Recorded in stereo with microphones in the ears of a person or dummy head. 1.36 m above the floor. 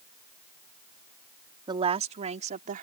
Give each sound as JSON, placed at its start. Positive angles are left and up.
{"t": 1.7, "sound": "a woman speaking", "side_deg": -25}